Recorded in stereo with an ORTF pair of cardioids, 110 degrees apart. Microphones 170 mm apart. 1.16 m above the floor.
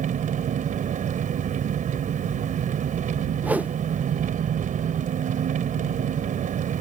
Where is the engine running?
50° right.